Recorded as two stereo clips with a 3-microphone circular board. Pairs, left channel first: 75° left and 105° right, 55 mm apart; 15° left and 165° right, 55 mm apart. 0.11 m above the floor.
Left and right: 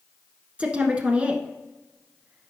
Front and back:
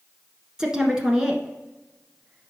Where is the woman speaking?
110° right, 1.1 m.